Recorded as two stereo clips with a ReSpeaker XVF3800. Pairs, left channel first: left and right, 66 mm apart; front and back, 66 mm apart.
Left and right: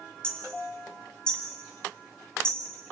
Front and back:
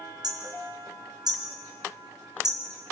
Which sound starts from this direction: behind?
Hammering, at 0.2 s.